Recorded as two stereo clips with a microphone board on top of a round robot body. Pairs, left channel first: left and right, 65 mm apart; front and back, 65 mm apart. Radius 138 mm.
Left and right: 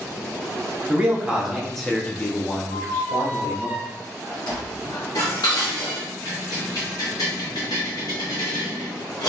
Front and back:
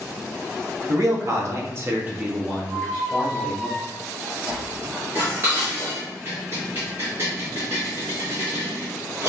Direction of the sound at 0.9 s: 160° right.